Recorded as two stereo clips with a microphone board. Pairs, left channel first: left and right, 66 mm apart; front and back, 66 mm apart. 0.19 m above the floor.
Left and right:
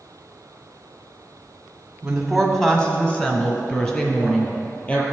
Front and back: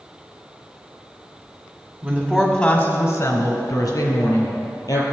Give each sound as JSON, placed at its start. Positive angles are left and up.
{"t": 2.0, "sound": "a woman speaking", "azimuth_deg": -150, "distance_m": 1.1}